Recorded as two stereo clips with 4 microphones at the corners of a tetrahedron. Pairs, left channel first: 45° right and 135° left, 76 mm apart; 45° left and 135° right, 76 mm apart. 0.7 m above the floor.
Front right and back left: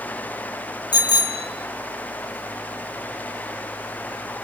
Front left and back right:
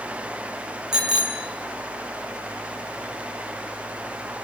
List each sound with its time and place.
0.9 s a bicycle bell: 50° right, 2.5 m